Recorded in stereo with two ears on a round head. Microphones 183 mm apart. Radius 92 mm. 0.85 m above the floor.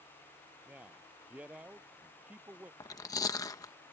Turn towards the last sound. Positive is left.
turn(degrees=15)  # may be behind; listen again after turning